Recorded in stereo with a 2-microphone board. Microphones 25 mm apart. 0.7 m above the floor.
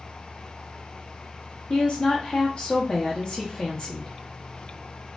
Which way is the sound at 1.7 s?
40° left (ahead or behind).